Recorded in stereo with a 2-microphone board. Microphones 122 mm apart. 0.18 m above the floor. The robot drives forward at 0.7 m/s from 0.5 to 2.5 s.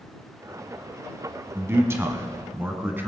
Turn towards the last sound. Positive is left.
turn(degrees=-20)  # may be behind; listen again after turning